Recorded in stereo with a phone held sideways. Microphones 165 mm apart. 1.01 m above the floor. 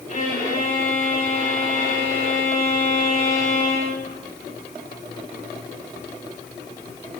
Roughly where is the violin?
Left.